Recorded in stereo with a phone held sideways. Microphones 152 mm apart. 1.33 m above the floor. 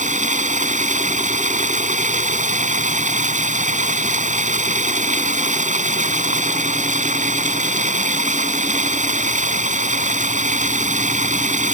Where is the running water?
55° right (ahead or behind).